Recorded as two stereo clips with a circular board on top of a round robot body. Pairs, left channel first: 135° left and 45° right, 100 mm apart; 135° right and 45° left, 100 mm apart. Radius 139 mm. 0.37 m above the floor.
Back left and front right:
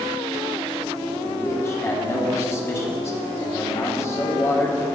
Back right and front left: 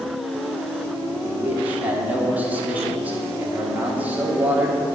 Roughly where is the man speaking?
Left.